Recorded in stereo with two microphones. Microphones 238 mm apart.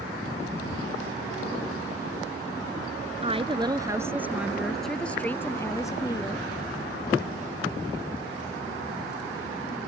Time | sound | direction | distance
3.2 | a woman speaking | 25° right (ahead or behind) | ?